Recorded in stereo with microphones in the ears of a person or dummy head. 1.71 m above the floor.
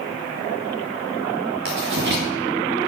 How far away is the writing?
About 2 m.